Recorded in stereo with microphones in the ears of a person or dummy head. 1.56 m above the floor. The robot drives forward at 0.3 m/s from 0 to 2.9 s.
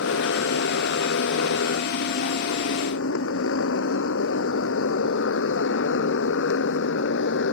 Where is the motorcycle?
90° left; by 7.5 s 75° left (ahead or behind).